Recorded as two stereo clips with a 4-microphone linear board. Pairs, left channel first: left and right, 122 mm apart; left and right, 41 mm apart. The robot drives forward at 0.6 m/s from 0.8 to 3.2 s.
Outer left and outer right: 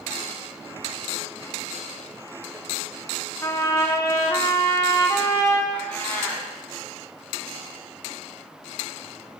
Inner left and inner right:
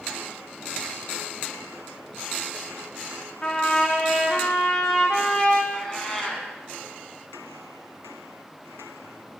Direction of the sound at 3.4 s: 25° left (ahead or behind).